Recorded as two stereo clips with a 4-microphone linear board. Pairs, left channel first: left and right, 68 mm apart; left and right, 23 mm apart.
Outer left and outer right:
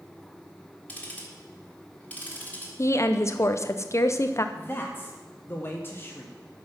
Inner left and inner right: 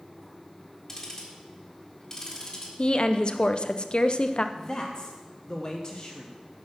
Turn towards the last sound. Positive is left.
turn(degrees=35)  # may be behind; listen again after turning